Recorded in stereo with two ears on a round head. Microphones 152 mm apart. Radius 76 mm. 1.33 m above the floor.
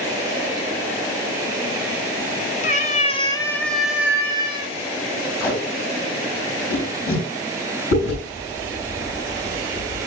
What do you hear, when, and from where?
2.6 s a cat meowing: 45° left (ahead or behind), 1.0 m; by 4.8 s 30° right (ahead or behind), 1.2 m
5.4 s tape being pulled: 75° left (ahead or behind), 5 m
7.9 s chewing: 80° left, 5 m